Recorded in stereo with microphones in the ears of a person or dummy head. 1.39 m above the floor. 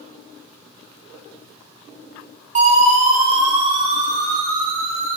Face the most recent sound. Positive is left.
turn(degrees=-45)  # may be behind; listen again after turning